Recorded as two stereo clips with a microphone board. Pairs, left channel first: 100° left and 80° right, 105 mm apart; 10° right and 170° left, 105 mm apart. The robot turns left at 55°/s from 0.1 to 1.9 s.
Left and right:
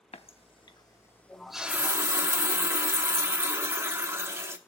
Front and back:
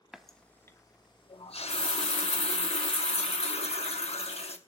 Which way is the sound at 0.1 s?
85° left.